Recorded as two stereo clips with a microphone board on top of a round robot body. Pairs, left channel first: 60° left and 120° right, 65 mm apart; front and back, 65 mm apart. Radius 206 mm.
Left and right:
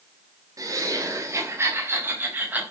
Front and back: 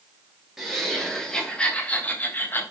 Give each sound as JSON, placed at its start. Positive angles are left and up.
{"t": 0.6, "sound": "laughter", "azimuth_deg": -95, "distance_m": 3.5}